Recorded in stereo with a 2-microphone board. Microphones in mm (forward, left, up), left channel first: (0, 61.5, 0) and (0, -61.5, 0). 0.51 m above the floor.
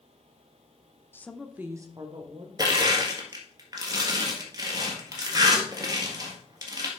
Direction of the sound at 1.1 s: 20° left (ahead or behind).